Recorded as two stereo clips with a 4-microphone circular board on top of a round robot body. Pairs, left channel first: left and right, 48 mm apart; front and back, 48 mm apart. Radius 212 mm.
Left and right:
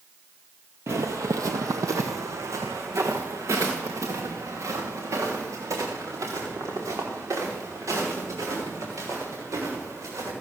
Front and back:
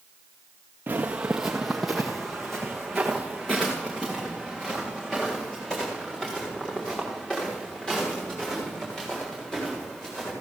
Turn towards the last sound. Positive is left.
turn(degrees=-70)